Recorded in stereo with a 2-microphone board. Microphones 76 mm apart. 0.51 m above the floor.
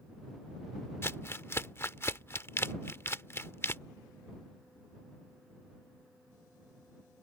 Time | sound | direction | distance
1.0 | crumpling | 35° left (ahead or behind) | ?